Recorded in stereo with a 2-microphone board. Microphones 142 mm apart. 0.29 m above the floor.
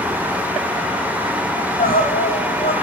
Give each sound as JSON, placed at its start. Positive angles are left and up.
{"t": 1.6, "sound": "crying", "side_deg": 85, "distance_m": 8.5}